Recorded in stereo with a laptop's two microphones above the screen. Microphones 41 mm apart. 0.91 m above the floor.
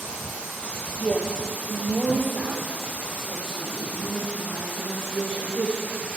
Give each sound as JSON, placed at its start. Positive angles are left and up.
{"t": 1.0, "sound": "a woman speaking", "side_deg": -25, "distance_m": 1.6}